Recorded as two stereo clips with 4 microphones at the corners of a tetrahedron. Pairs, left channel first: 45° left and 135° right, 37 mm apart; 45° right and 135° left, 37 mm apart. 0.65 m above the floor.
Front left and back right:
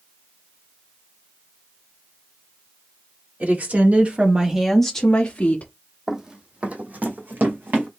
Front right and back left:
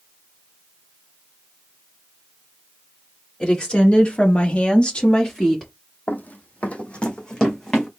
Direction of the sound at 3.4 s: 110° right.